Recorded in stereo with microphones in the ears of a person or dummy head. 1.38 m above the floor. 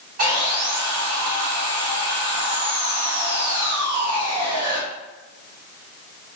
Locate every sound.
0.2 s sawing: 50° right (ahead or behind), 1.0 m